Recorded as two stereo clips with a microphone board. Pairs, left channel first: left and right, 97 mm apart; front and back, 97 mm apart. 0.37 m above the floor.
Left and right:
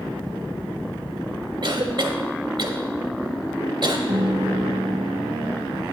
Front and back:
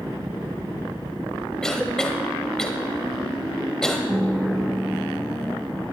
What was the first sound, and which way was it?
A cough, 80° right.